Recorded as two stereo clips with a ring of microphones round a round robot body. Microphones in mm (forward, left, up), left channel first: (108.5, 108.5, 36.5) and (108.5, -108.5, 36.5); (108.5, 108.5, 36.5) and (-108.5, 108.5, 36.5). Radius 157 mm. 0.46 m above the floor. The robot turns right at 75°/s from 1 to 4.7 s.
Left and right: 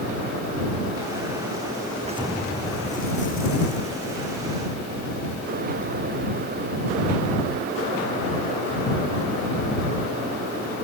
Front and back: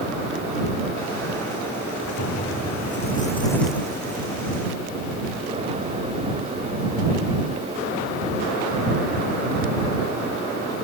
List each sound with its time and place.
2.0 s an explosion: 35° right; by 4.6 s 160° left